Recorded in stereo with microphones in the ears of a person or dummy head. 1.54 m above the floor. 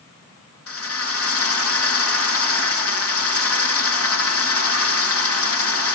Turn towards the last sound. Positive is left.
turn(degrees=80)